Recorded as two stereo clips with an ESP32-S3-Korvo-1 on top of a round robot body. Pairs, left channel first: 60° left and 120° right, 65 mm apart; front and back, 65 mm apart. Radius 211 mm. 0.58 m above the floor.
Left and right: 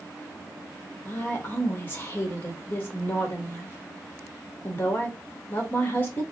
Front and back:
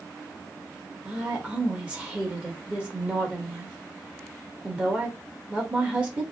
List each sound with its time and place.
1.1 s a woman speaking: 110° left, 1.6 m